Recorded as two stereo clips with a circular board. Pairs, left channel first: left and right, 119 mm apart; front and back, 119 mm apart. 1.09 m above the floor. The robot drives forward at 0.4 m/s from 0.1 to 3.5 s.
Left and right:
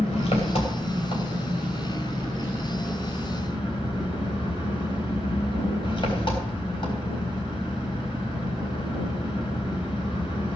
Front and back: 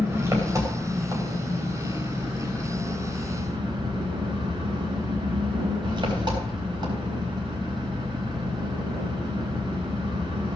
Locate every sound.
0.0 s an engine running: 115° left, 3 m; by 10.6 s 130° left, 4 m